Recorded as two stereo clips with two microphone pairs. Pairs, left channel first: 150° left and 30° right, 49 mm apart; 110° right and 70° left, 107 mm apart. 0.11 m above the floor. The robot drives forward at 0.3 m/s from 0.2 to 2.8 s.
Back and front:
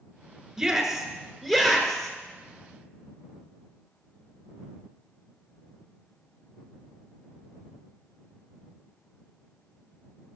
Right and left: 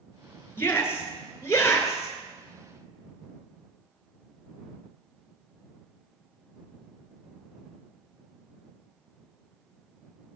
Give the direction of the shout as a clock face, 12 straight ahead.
3 o'clock.